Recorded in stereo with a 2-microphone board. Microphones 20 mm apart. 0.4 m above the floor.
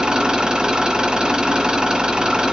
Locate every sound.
0.0 s an engine running: 45° right (ahead or behind), 1.7 m